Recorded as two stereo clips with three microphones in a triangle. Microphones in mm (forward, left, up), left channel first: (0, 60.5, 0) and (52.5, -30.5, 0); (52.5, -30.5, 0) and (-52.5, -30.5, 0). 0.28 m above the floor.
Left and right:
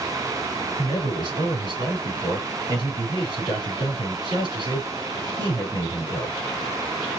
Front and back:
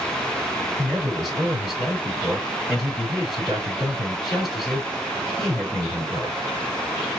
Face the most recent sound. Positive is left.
turn(degrees=-90)